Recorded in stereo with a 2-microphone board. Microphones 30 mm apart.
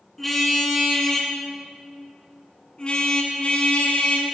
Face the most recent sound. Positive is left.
turn(degrees=50)  # may be behind; listen again after turning